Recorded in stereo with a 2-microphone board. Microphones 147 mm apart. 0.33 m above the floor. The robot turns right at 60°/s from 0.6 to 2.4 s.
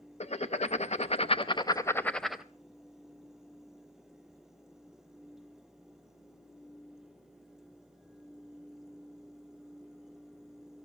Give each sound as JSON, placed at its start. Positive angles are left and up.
{"t": 0.2, "sound": "writing", "azimuth_deg": 80, "distance_m": 0.7}